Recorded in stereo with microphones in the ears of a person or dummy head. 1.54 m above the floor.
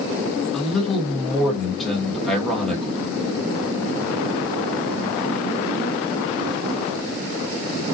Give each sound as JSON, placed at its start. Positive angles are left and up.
{"t": 0.5, "sound": "a man speaking", "side_deg": 0, "distance_m": 1.1}